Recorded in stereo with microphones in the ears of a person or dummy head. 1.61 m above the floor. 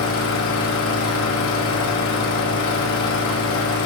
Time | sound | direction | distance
0.0 | an engine running | 70° left (ahead or behind) | 2.5 m